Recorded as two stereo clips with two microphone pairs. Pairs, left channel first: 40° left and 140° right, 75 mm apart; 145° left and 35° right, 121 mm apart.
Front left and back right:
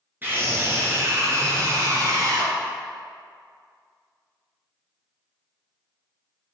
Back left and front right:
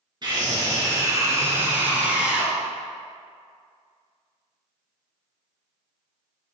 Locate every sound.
0.2 s a scream: 80° right, 2.5 m; by 2.5 s 120° right, 2.5 m